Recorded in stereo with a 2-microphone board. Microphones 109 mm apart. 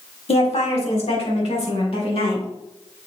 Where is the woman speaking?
65° left (ahead or behind), 2 m; by 2.5 s 70° left (ahead or behind), 4.5 m.